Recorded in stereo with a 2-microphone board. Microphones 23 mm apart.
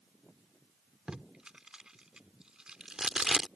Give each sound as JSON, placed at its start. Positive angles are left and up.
{"t": 1.1, "sound": "tape being pulled", "side_deg": -40}